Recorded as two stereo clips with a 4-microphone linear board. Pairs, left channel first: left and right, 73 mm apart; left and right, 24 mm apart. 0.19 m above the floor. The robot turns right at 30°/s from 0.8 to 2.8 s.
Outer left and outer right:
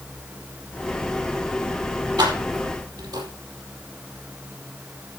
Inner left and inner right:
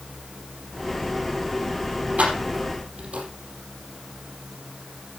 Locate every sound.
2.2 s keys jangling: 80° right, 4.5 m; by 3.3 s 70° right (ahead or behind), 4.5 m